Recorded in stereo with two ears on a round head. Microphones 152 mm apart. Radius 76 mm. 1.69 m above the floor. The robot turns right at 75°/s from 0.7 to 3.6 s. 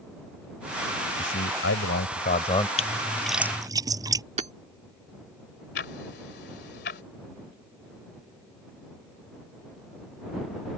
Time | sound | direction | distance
1.2 | a man speaking | 50° left | ?
2.8 | a splash | 40° left (ahead or behind) | ?
4.4 | hammering | 40° right (ahead or behind) | ?
5.8 | ticking | 70° left (ahead or behind) | ?